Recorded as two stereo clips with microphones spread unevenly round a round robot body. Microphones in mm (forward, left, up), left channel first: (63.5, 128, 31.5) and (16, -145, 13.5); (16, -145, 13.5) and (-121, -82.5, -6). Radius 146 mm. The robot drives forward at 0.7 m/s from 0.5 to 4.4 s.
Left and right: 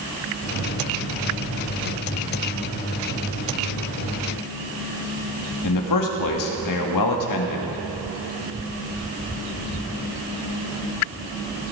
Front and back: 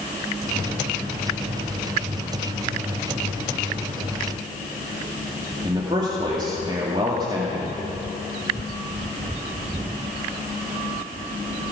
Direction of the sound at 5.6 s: 85° left.